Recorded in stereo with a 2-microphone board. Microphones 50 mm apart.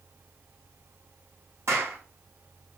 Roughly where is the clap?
Right.